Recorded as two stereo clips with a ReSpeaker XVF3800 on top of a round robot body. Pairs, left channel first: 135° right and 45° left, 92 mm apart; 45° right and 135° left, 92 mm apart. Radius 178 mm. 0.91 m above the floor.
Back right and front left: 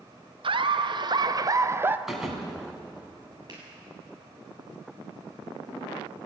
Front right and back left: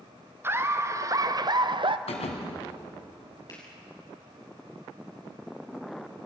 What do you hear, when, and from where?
0.4 s laughter: 70° left, 1.7 m; by 2.0 s 115° left, 1.1 m
2.1 s a thud: 40° right, 2 m
3.5 s a finger snap: straight ahead, 7.5 m